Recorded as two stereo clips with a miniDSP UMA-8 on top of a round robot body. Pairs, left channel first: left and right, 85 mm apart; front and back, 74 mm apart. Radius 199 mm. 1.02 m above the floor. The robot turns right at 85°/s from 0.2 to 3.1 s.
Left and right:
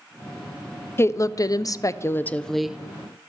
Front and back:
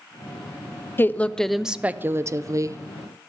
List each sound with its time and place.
1.0 s a woman speaking: 45° left, 0.5 m; by 2.8 s 165° right, 0.5 m